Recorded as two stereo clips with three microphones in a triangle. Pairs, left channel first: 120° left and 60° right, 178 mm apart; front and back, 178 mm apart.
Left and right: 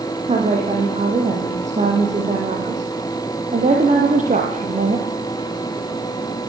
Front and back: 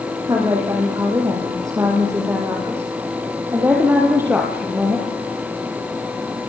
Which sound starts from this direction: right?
A woman speaking, at 0.3 s.